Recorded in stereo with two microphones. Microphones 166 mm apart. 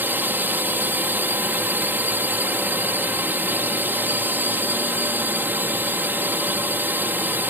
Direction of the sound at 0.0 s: 10° right (ahead or behind).